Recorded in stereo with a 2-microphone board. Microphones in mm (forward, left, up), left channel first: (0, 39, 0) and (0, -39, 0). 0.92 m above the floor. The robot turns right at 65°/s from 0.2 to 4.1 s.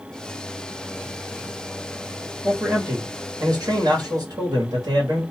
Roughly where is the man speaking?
Behind.